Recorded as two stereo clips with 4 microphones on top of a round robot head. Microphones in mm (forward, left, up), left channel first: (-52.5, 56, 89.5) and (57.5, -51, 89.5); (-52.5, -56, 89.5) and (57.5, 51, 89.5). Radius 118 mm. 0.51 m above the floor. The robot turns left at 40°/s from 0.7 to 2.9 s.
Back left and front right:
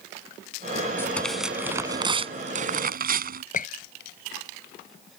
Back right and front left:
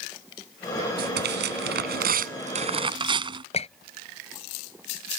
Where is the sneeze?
No sneeze in this recording.